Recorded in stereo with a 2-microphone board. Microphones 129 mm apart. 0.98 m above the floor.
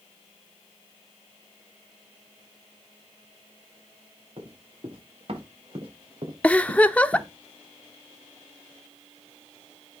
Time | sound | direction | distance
4.4 | running footsteps | 50° right (ahead or behind) | 6.5 m
6.4 | a giggle | 10° left (ahead or behind) | 0.7 m